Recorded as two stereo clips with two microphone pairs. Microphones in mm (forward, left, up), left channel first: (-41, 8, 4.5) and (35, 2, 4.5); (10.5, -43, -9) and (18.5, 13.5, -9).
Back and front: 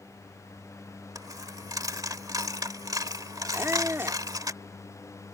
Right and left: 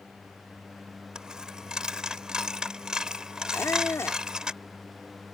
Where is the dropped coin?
10° left.